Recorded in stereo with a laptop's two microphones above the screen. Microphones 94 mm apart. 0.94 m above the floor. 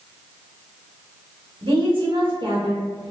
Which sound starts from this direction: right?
A woman speaking, at 1.6 s.